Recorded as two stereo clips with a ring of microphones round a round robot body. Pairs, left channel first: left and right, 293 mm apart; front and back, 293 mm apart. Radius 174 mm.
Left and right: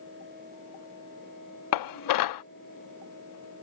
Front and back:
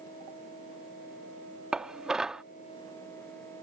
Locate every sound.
1.7 s dishes clattering: 90° left